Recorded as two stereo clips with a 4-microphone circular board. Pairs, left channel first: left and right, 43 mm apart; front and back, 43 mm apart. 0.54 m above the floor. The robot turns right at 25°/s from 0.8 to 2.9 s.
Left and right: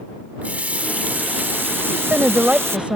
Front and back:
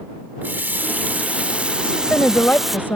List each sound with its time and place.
0.4 s a running tap: 145° right; by 2.8 s 95° right
1.8 s a woman speaking: 60° right; by 3.0 s 30° right